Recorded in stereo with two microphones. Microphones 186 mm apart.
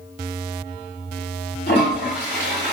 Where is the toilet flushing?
75° left (ahead or behind), 4 m.